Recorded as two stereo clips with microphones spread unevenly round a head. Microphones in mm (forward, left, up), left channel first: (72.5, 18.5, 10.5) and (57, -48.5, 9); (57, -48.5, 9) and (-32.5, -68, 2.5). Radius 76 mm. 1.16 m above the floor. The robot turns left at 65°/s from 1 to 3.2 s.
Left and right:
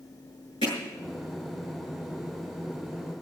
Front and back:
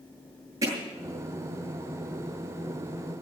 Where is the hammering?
120° left, 7.5 m.